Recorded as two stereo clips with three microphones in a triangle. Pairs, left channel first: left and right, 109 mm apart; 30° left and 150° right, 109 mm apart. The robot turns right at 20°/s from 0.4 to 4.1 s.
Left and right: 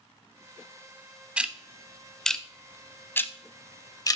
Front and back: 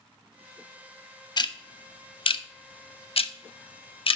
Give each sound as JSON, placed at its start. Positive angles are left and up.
{"t": 1.4, "sound": "ticking", "azimuth_deg": -10, "distance_m": 0.5}